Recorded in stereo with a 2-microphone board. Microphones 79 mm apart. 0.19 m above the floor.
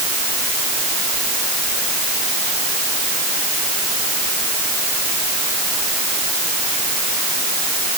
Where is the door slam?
I don't hear a door slam.